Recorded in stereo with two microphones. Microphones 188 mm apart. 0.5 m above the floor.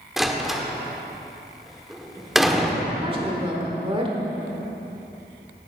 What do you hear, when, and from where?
0.2 s a door slam: centre (ahead or behind), 1.1 m
3.0 s a woman speaking: 30° right (ahead or behind), 1.5 m